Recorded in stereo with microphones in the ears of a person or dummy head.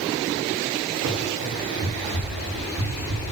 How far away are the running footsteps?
About 3 m.